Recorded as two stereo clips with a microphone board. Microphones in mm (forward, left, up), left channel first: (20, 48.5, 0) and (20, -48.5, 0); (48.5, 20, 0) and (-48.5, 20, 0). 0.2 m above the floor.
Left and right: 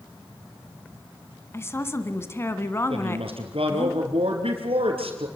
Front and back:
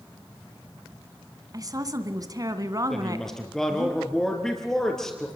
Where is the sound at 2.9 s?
85° right, 4 m.